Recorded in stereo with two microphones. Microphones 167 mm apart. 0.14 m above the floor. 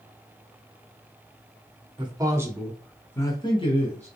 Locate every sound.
2.0 s a man speaking: 30° right (ahead or behind), 1.1 m; by 4.1 s 40° left (ahead or behind), 1.3 m